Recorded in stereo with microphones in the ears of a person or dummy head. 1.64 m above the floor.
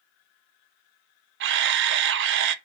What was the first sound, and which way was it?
A camera shutter, 70° right (ahead or behind).